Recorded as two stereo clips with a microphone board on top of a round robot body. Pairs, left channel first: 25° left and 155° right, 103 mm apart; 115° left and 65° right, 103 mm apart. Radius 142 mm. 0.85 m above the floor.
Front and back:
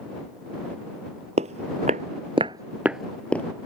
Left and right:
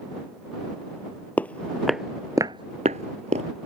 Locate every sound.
1.4 s footsteps: 175° right; by 3.5 s 50° right